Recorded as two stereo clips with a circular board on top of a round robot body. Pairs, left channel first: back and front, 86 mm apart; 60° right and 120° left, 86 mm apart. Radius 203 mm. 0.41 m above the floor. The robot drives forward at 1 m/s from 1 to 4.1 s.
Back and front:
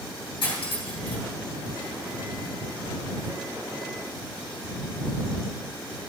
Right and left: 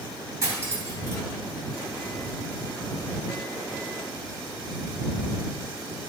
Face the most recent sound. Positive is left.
turn(degrees=180)